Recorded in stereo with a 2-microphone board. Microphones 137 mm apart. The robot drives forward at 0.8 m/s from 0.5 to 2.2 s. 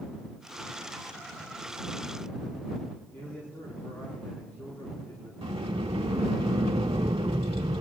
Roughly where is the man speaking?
Centre.